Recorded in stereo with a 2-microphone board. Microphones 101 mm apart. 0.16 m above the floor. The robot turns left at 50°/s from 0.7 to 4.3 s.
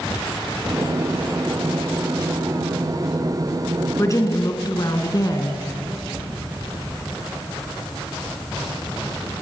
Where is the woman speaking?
30° left (ahead or behind), 1.7 m; by 5.6 s 35° left (ahead or behind), 1.7 m.